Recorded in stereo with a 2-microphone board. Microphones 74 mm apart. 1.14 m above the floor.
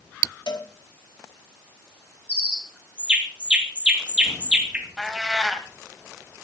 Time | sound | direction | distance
0.5 | a cowbell | 80° left | 2.5 m
2.3 | a bird | 15° right (ahead or behind) | 1.8 m
5.0 | a cat meowing | centre (ahead or behind) | 1.7 m